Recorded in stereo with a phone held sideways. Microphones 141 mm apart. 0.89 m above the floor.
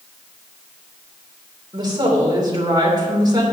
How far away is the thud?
No thud in this recording.